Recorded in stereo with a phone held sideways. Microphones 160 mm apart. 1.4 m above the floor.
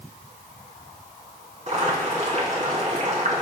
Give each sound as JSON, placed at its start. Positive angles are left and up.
{"t": 1.7, "sound": "boiling", "side_deg": -50, "distance_m": 3.0}